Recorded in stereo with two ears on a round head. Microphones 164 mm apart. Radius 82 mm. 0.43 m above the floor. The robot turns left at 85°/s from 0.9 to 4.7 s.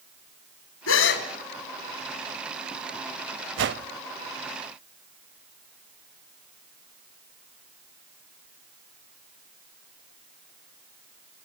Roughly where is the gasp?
Left.